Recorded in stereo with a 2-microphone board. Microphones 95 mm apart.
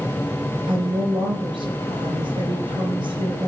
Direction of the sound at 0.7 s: 60° right (ahead or behind).